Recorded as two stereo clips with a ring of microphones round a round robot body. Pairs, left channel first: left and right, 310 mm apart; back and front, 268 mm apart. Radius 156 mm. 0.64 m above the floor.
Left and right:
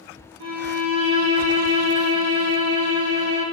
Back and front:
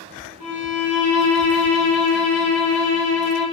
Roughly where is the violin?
Right.